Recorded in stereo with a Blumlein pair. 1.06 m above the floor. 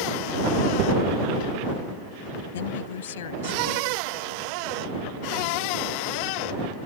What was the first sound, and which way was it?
A woman speaking, 60° left.